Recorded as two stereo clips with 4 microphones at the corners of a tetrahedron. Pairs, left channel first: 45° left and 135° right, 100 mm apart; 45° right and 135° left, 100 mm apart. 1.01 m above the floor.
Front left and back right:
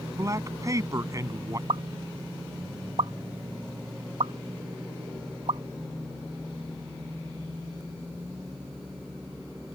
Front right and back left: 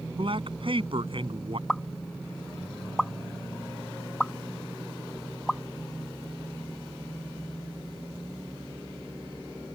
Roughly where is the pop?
Behind right.